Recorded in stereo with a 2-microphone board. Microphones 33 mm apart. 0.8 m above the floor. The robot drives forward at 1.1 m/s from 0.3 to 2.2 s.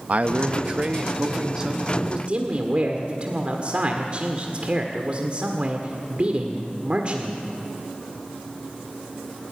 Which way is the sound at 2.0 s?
45° right (ahead or behind).